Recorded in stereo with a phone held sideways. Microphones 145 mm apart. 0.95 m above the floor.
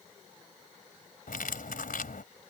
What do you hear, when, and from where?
1.3 s cutlery clinking: 85° left